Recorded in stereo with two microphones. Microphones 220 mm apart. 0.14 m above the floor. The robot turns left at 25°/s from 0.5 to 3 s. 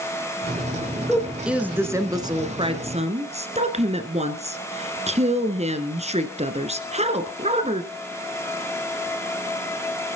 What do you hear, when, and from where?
1.1 s a woman speaking: 5° left, 1.7 m; by 7.8 s 45° right, 1.7 m